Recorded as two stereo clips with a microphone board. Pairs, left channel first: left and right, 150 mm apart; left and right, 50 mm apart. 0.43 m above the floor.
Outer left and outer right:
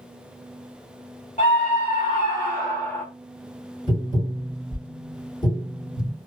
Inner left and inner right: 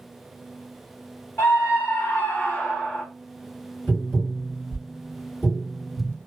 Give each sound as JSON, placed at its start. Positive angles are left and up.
{"t": 1.4, "sound": "a scream", "side_deg": 45, "distance_m": 1.6}
{"t": 3.9, "sound": "tapping", "side_deg": 40, "distance_m": 2.0}